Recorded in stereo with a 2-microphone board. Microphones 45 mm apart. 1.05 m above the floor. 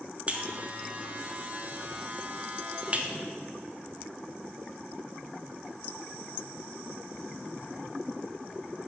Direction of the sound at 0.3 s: 35° right (ahead or behind).